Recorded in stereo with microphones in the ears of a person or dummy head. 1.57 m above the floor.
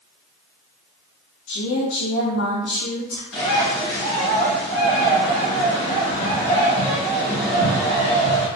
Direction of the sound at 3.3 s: 65° left (ahead or behind).